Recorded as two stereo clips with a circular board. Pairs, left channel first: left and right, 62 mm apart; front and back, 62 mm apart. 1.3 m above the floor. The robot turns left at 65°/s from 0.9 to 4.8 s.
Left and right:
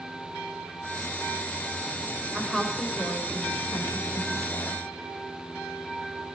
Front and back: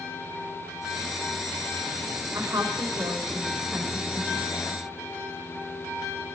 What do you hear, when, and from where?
2.3 s a woman speaking: 165° right, 6 m; by 4.8 s 40° left, 6 m